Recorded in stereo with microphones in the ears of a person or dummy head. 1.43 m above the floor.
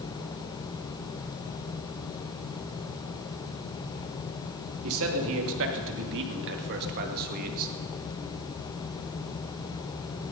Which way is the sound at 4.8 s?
80° right.